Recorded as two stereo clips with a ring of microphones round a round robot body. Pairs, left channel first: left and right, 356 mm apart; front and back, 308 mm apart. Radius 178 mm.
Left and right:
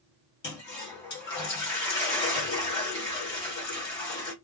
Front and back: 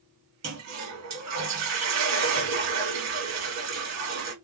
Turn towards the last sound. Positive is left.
turn(degrees=150)